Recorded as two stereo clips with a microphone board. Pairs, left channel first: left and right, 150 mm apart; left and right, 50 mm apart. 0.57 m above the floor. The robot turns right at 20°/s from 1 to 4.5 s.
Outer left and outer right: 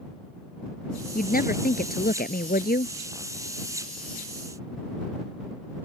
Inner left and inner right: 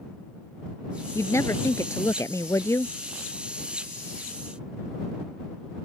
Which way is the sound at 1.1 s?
70° left.